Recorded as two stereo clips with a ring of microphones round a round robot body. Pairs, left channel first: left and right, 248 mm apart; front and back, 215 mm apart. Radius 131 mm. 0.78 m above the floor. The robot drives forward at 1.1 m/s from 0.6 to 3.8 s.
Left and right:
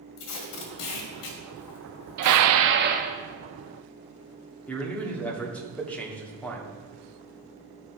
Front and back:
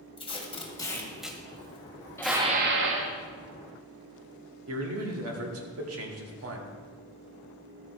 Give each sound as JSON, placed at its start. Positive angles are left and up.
{"t": 0.2, "sound": "tape being pulled", "azimuth_deg": 65, "distance_m": 1.7}
{"t": 2.2, "sound": "dishes clattering", "azimuth_deg": -80, "distance_m": 0.6}
{"t": 4.7, "sound": "a man speaking", "azimuth_deg": 175, "distance_m": 1.7}